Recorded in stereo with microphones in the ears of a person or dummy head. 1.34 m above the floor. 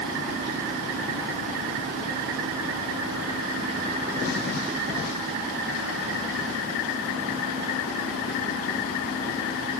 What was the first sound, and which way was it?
Only background noise.